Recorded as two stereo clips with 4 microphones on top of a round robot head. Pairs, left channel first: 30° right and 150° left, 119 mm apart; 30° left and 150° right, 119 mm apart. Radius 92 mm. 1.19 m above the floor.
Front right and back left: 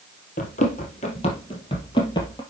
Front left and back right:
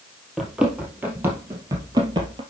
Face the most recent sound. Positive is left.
turn(degrees=-95)